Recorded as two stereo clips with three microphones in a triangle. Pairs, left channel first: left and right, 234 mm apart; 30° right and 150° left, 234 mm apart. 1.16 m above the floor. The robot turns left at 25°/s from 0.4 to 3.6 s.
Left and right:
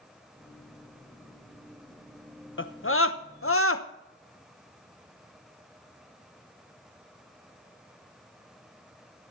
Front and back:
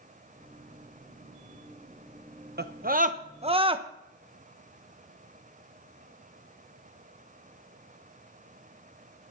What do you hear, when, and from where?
2.6 s a scream: 110° left, 1.0 m; by 3.9 s 85° left, 1.0 m